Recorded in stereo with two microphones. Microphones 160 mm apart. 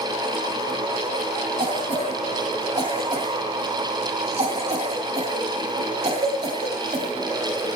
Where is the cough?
45° right (ahead or behind), 2.5 m.